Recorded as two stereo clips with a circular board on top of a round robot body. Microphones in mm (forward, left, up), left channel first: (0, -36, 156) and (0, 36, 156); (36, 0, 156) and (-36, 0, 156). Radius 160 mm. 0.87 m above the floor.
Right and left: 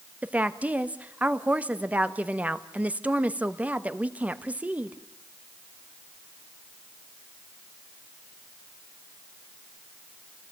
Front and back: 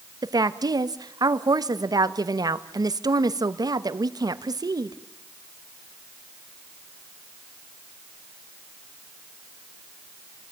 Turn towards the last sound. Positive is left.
turn(degrees=160)